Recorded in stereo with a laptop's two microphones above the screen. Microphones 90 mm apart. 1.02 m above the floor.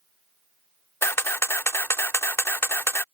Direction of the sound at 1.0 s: 30° left (ahead or behind).